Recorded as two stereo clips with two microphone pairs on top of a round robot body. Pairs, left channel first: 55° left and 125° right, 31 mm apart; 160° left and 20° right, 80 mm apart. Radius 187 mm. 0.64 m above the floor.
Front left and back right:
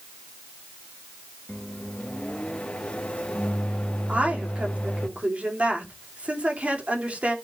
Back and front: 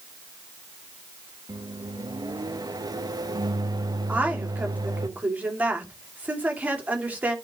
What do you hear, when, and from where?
1.5 s a microwave: straight ahead, 1.3 m
4.1 s a woman speaking: 85° right, 3 m